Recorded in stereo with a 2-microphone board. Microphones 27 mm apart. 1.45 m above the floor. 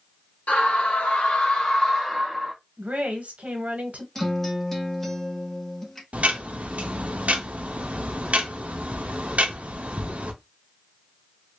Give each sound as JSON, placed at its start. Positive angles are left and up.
{"t": 0.5, "sound": "a scream", "side_deg": 85, "distance_m": 1.5}
{"t": 2.8, "sound": "a woman speaking", "side_deg": -80, "distance_m": 1.2}
{"t": 4.2, "sound": "a guitar", "side_deg": 10, "distance_m": 1.0}
{"t": 6.1, "sound": "ticking", "side_deg": -70, "distance_m": 0.6}